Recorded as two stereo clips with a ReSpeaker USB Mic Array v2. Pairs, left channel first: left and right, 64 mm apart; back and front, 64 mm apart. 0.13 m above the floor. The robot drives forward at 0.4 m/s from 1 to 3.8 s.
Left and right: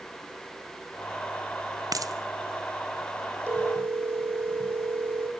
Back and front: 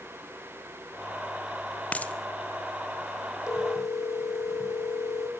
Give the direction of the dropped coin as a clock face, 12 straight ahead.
4 o'clock.